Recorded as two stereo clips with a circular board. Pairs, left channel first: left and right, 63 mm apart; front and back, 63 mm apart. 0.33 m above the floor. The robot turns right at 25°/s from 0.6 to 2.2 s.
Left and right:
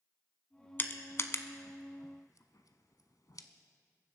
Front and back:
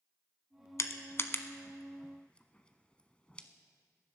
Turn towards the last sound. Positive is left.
turn(degrees=70)